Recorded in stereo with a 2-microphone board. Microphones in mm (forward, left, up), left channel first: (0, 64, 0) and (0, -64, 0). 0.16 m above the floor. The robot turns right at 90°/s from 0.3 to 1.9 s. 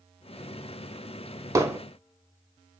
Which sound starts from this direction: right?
Hammering, at 1.6 s.